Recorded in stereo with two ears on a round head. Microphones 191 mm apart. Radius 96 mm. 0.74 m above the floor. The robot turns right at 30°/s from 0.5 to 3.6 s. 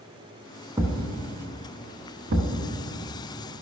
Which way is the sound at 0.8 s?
15° right (ahead or behind).